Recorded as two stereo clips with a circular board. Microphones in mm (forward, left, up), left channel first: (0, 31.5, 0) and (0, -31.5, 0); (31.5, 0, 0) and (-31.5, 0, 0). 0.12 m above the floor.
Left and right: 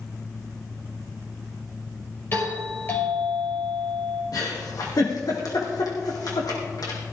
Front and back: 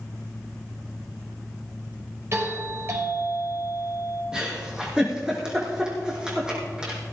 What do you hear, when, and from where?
2.3 s a doorbell: 140° left, 5 m
4.3 s a giggle: 105° left, 4 m